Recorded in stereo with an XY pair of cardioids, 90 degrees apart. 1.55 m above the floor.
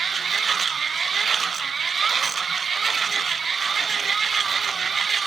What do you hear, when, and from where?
0.0 s a machine running: 45° right, 0.8 m